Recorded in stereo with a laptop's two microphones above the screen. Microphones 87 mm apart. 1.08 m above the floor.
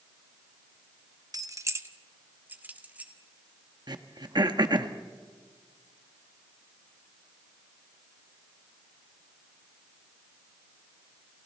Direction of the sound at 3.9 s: 55° right (ahead or behind).